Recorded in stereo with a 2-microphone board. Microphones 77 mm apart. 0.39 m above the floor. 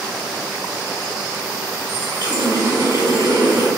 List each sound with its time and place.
1.9 s a running tap: 65° right (ahead or behind), 1.8 m